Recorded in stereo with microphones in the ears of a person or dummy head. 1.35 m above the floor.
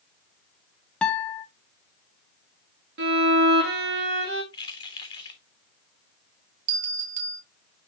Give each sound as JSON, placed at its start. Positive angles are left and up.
{"t": 1.0, "sound": "a guitar", "side_deg": 10, "distance_m": 0.9}
{"t": 3.0, "sound": "a violin", "side_deg": -55, "distance_m": 2.0}
{"t": 4.5, "sound": "keys jangling", "side_deg": 30, "distance_m": 1.6}
{"t": 6.7, "sound": "a bell", "side_deg": -50, "distance_m": 1.6}